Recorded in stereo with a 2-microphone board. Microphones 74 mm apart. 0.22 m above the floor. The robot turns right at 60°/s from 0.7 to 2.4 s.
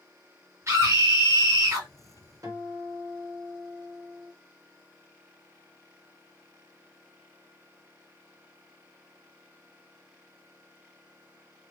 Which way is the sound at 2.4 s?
45° right (ahead or behind).